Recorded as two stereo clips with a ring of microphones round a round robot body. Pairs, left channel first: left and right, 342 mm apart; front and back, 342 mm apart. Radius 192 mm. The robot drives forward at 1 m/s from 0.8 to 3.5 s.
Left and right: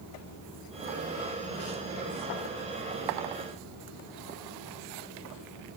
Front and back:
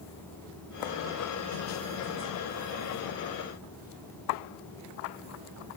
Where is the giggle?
No giggle in this recording.